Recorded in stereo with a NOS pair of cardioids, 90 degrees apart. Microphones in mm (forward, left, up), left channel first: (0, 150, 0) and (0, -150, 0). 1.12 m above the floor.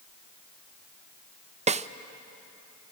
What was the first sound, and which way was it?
A snare drum, 25° right.